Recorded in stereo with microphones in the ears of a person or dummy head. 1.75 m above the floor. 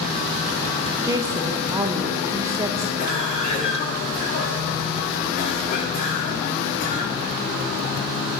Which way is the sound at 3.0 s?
40° left (ahead or behind).